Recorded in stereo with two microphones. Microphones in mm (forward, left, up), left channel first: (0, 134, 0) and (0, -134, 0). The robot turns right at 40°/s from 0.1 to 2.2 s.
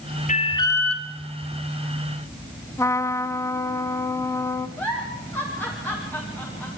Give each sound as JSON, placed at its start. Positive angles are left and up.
{"t": 0.3, "sound": "an alarm", "azimuth_deg": 150, "distance_m": 2.5}
{"t": 2.8, "sound": "a trumpet", "side_deg": 10, "distance_m": 1.2}
{"t": 4.8, "sound": "a giggle", "side_deg": 5, "distance_m": 8.0}